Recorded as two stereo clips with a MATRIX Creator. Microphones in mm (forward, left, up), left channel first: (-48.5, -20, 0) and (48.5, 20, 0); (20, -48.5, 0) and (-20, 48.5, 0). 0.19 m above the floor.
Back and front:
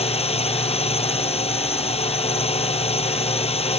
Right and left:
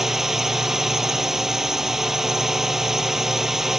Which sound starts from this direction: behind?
A drone, at 0.0 s.